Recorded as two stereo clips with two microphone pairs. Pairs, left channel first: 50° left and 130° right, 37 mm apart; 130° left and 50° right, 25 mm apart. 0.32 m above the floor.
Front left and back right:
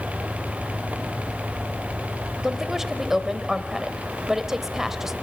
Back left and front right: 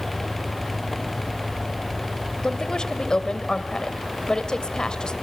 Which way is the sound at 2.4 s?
155° left.